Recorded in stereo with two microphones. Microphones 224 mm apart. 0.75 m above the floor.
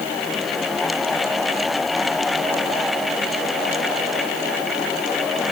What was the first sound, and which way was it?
Only background noise.